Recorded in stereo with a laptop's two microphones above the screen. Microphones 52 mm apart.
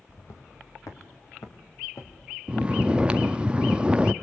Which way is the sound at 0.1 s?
65° left (ahead or behind).